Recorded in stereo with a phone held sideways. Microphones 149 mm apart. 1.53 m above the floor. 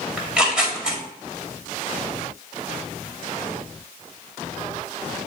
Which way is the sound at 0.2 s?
5° right (ahead or behind).